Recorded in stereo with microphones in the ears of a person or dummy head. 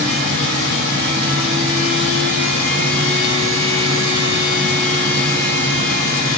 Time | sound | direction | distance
0.0 | a fan | 65° right (ahead or behind) | 1.1 m